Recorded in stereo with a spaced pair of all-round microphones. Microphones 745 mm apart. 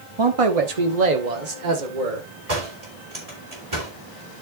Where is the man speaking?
35° right (ahead or behind), 1.0 m; by 2.3 s 80° right, 2.5 m.